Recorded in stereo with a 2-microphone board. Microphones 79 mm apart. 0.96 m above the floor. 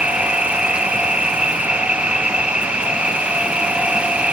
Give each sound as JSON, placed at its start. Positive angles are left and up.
{"t": 0.0, "sound": "an insect", "side_deg": -15}